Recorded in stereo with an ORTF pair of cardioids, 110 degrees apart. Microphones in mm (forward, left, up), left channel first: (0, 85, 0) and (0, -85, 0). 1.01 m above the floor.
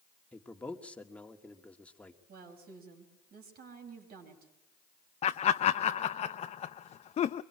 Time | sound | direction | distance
0.3 | a man speaking | 10° left | 1.9 m
2.3 | a woman speaking | 65° right | 5.5 m
5.2 | laughter | 40° left | 0.7 m